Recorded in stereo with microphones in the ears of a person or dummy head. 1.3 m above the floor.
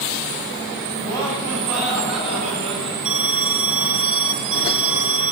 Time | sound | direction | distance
1.0 | laughter | 15° left (ahead or behind) | 9.5 m
3.0 | an alarm | 5° right (ahead or behind) | 4 m